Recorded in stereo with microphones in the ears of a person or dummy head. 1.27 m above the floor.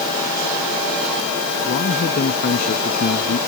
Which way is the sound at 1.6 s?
40° left (ahead or behind).